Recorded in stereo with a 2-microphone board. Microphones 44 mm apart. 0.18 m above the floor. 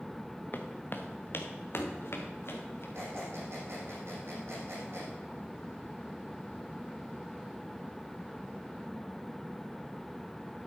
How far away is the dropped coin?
No dropped coin in this recording.